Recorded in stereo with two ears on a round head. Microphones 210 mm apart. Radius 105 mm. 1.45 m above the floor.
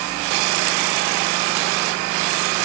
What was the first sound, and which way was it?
Only background noise.